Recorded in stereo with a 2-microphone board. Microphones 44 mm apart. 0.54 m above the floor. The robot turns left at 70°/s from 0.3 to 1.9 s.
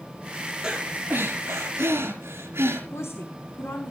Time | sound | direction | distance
0.6 | breathing | 20° right | 5 m
2.9 | a woman speaking | 75° left (ahead or behind) | 3.5 m